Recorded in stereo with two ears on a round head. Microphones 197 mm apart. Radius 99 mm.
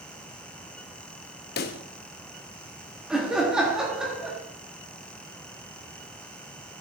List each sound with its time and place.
1.6 s a pop: 45° left (ahead or behind), 0.7 m
3.1 s laughter: 5° right (ahead or behind), 1.3 m